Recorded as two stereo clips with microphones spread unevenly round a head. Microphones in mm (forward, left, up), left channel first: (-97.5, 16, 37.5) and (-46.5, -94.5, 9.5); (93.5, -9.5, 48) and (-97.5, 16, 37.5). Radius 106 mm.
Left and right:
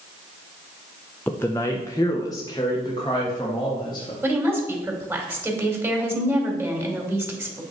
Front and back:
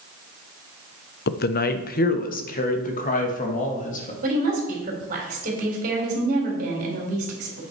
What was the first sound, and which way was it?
A man speaking, 35° left.